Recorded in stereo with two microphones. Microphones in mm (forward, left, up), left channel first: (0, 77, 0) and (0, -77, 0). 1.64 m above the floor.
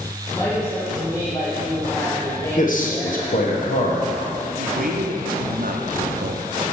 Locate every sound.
0.3 s a woman speaking: 25° left (ahead or behind), 1.4 m
2.6 s a man speaking: 60° left (ahead or behind), 1.1 m
4.6 s a man speaking: 70° right (ahead or behind), 0.6 m